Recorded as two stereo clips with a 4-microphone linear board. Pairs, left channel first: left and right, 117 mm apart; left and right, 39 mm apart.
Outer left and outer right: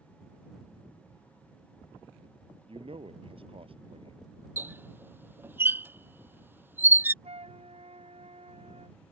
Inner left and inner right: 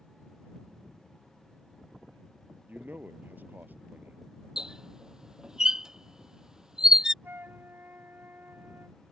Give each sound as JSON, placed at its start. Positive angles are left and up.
{"t": 2.7, "sound": "a man speaking", "side_deg": -55}
{"t": 4.6, "sound": "a squeak", "side_deg": -20}
{"t": 7.2, "sound": "a flute", "side_deg": -60}